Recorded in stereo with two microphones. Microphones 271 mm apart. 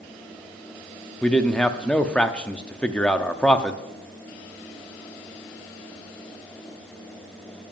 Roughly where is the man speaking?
Centre.